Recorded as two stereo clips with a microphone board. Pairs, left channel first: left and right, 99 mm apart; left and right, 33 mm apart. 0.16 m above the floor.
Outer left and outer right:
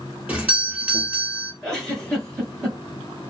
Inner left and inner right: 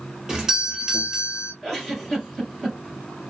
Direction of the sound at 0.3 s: 10° right (ahead or behind).